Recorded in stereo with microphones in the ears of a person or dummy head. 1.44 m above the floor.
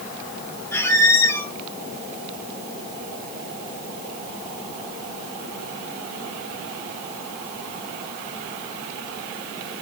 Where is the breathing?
I don't hear breathing.